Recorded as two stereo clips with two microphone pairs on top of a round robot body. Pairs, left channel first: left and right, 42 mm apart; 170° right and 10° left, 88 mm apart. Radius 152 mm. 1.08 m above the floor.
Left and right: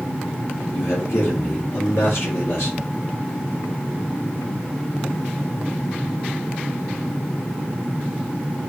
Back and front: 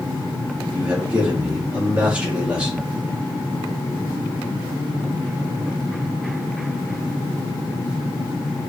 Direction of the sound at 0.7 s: 85° left.